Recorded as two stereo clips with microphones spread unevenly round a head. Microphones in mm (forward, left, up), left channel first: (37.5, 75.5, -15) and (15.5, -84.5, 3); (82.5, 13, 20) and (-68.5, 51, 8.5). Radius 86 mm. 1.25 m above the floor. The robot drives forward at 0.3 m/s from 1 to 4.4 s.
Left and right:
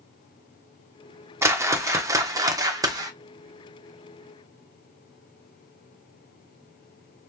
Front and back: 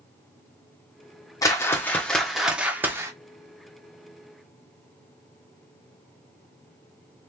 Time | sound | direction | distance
1.4 | a whoosh | 55° right | 0.9 m